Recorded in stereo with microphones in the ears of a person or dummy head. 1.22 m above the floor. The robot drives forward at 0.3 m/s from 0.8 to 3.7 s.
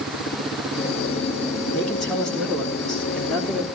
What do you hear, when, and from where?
1.8 s a man speaking: centre (ahead or behind), 3 m